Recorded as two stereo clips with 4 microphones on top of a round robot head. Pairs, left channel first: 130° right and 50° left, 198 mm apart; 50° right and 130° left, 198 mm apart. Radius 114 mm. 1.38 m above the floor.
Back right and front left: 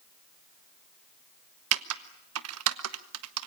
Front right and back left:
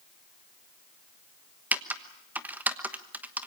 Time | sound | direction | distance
1.7 | typing on a keyboard | 45° left | 1.1 m